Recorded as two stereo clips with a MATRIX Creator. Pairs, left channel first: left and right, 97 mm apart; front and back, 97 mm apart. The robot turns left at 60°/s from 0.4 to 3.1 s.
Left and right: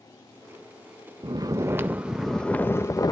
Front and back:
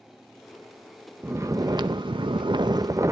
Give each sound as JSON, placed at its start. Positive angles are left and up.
{"t": 1.2, "sound": "snoring", "azimuth_deg": -120, "distance_m": 0.6}